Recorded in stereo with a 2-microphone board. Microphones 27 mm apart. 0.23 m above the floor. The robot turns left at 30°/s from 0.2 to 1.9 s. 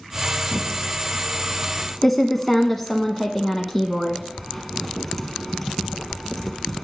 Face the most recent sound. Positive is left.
turn(degrees=5)  # may be behind; listen again after turning